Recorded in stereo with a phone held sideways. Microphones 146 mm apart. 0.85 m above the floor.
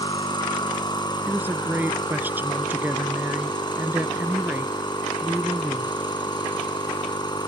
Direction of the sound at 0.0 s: 30° left (ahead or behind).